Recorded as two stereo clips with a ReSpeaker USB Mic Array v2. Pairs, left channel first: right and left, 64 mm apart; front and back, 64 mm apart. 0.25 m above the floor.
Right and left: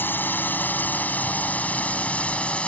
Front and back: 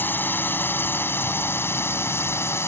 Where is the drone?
45° right; by 2.7 s 25° right.